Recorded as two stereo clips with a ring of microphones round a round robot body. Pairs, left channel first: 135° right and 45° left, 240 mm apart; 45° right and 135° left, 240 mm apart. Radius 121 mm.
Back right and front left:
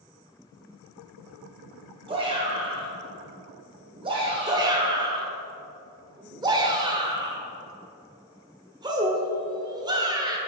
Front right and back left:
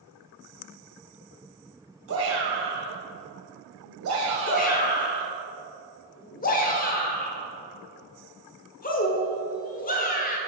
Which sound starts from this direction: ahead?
A shout, at 4.5 s.